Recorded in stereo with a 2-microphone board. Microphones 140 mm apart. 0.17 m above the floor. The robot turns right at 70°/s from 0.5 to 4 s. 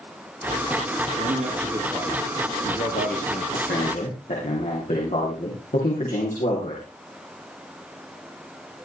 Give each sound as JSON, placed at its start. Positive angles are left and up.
{"t": 1.2, "sound": "a man speaking", "azimuth_deg": -70, "distance_m": 5.0}
{"t": 3.5, "sound": "a man speaking", "azimuth_deg": 80, "distance_m": 9.5}